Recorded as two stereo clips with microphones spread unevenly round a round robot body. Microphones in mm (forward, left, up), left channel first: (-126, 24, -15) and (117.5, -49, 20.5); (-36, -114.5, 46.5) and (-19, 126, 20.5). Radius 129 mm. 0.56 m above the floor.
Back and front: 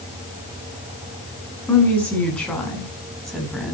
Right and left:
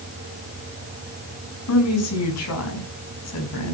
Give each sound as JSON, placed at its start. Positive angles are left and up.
{"t": 1.7, "sound": "a woman speaking", "azimuth_deg": -115, "distance_m": 6.5}